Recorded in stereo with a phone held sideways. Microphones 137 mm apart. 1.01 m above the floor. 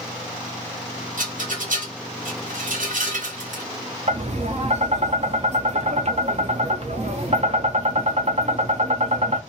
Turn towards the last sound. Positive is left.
turn(degrees=-50)  # may be behind; listen again after turning